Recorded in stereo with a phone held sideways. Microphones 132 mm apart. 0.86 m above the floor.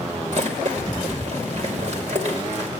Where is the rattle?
60° right (ahead or behind), 2.5 m.